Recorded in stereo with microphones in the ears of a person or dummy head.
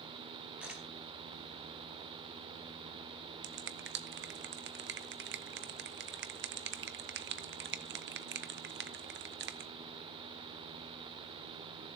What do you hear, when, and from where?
0.6 s a camera shutter: 5° right (ahead or behind), 4.5 m
3.4 s a finger snap: 45° right (ahead or behind), 0.5 m